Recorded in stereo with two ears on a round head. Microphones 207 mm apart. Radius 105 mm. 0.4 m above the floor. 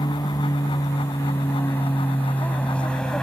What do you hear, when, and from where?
0.0 s an aircraft: 15° left (ahead or behind); by 3.2 s 5° left (ahead or behind)